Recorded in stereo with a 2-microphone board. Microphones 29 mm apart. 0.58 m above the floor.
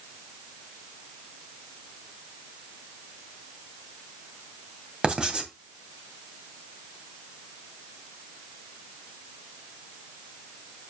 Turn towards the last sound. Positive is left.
turn(degrees=-30)  # may be behind; listen again after turning